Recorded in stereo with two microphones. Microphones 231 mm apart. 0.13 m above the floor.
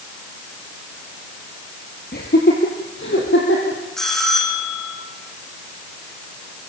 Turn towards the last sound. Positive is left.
turn(degrees=0)  # may be behind; listen again after turning